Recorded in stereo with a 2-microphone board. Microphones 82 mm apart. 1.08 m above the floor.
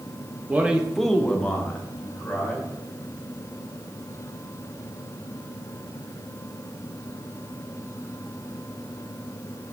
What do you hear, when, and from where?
0.5 s a man speaking: 20° right (ahead or behind), 0.7 m; by 2.7 s 15° left (ahead or behind), 2.5 m